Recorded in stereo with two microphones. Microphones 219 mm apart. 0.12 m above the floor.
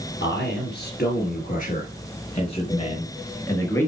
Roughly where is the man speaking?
Left.